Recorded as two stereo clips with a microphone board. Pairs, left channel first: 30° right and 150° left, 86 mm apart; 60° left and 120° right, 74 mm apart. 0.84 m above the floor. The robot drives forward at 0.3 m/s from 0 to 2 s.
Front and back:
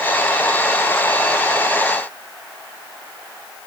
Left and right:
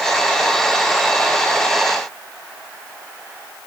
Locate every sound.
Only background noise.